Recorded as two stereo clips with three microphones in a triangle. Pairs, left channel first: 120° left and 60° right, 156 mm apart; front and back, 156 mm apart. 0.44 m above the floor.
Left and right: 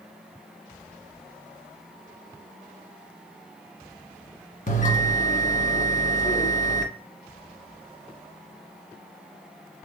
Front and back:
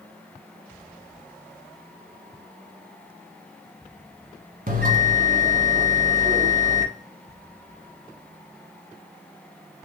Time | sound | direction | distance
4.7 | a bell | 155° left | 1.4 m